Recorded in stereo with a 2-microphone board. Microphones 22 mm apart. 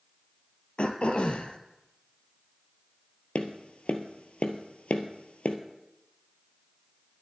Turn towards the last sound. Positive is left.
turn(degrees=70)  # may be behind; listen again after turning